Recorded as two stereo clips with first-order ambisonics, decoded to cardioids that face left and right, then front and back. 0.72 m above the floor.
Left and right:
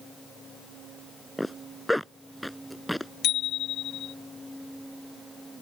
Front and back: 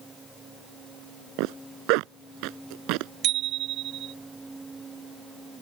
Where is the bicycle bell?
140° left.